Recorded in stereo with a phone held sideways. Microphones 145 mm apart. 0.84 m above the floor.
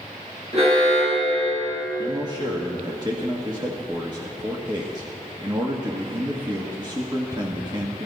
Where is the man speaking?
30° right (ahead or behind), 1.4 m.